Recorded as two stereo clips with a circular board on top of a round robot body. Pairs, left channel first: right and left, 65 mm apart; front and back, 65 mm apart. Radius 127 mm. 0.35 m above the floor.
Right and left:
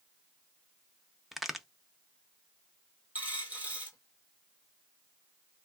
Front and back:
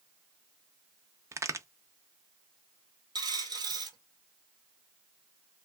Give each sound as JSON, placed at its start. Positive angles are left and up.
{"t": 1.3, "sound": "a crack", "azimuth_deg": 180, "distance_m": 0.6}
{"t": 3.1, "sound": "a dropped coin", "azimuth_deg": 160, "distance_m": 1.1}